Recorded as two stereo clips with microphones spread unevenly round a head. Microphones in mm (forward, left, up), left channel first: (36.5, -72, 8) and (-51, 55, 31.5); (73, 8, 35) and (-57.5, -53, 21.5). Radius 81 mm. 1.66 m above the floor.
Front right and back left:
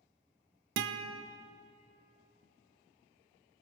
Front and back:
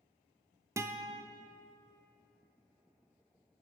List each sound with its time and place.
0.8 s a guitar: 135° left, 0.5 m